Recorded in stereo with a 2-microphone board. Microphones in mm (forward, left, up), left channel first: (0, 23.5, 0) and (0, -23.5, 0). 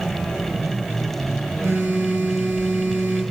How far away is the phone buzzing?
About 3 m.